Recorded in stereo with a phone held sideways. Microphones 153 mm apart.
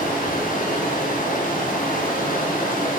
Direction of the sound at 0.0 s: 65° left (ahead or behind).